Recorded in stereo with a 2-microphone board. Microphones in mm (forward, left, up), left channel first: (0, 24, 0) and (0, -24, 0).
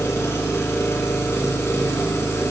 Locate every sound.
0.0 s an engine running: 90° left, 1.8 m